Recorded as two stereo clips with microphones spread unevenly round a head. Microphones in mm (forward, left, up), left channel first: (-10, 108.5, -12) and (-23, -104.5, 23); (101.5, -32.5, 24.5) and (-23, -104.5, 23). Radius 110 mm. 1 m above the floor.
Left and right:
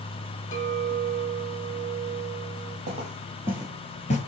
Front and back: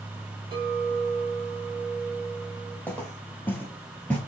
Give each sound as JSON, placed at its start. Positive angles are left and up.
{"t": 0.5, "sound": "a clink", "azimuth_deg": 140, "distance_m": 1.5}
{"t": 2.9, "sound": "footsteps", "azimuth_deg": -45, "distance_m": 1.8}